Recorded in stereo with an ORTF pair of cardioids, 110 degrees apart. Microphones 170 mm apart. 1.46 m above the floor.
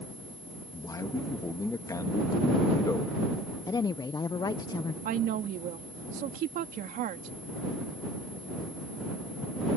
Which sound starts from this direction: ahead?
A man speaking, at 0.7 s.